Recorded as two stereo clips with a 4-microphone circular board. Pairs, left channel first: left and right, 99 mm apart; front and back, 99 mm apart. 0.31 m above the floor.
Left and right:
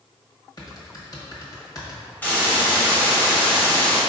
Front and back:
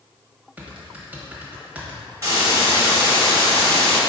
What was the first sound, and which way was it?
Typing on a keyboard, 115° left.